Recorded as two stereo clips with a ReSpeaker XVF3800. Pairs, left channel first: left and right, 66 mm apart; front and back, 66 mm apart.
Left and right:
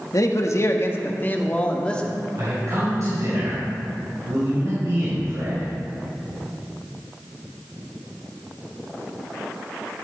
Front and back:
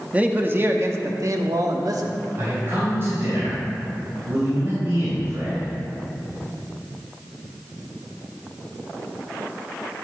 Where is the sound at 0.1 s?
115° left, 1.0 m; by 2.2 s 165° left, 1.6 m.